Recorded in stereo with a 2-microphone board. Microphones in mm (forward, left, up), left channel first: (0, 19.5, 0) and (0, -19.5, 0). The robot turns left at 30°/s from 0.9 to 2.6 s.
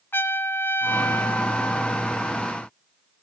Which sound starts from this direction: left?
A trumpet, at 0.1 s.